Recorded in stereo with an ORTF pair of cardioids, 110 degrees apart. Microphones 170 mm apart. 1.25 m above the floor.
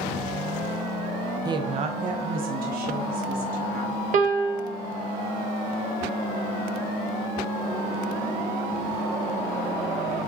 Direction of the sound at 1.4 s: 25° right.